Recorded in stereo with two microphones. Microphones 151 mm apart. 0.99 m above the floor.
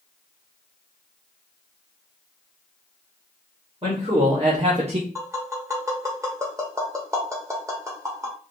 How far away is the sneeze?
I don't hear a sneeze.